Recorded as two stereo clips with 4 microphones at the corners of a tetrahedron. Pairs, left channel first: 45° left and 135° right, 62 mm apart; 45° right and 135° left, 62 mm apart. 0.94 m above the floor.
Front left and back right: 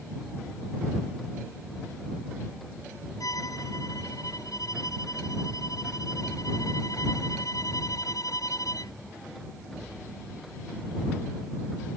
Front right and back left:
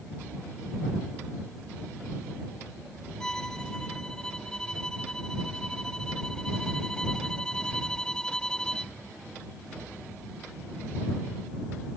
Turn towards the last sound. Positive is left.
turn(degrees=35)